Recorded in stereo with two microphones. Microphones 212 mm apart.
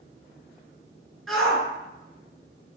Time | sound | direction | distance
1.3 | a shout | centre (ahead or behind) | 1.8 m